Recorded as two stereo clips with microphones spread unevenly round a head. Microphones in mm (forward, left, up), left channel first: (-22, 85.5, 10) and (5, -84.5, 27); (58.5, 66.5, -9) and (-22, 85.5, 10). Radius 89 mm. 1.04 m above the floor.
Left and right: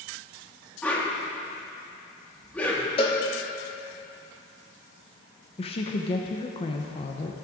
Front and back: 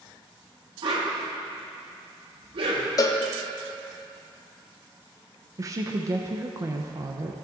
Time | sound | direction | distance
0.8 | a whoosh | 175° left | 1.3 m
3.0 | a cowbell | 35° left | 0.8 m
5.6 | a woman speaking | 120° left | 0.6 m